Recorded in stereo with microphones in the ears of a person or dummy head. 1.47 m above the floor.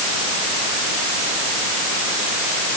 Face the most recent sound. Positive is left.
No sound to turn to.